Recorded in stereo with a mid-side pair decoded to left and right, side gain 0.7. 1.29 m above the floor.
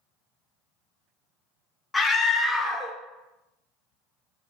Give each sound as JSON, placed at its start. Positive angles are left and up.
{"t": 1.9, "sound": "a scream", "azimuth_deg": 15, "distance_m": 0.5}